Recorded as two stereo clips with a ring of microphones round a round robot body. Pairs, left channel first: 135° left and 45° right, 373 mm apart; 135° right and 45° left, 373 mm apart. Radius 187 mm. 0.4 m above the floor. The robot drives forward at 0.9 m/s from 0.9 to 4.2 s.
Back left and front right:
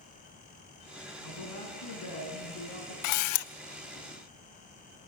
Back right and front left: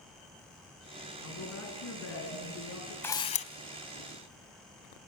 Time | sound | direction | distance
1.2 | a woman speaking | 175° left | 3.5 m
3.0 | a camera shutter | 140° left | 0.7 m